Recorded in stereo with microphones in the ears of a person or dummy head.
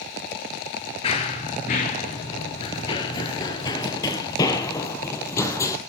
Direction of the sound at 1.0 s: 25° left (ahead or behind).